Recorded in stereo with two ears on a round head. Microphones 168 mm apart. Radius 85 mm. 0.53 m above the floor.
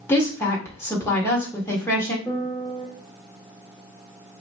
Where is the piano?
5° left (ahead or behind), 0.8 m.